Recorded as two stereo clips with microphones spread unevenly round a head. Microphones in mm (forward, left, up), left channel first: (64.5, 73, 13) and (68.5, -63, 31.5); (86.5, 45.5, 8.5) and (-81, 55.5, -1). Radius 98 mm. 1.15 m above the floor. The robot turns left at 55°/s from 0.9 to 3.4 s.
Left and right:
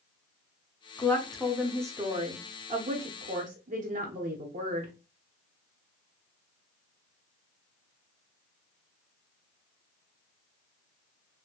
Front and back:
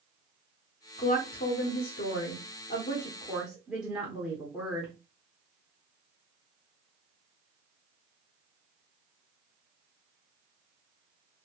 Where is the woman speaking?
30° left, 1.0 m; by 4.9 s 100° right, 1.0 m.